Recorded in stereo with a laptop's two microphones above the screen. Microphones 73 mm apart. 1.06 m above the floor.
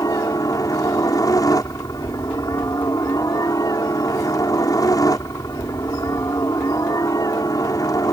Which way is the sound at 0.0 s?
55° left (ahead or behind).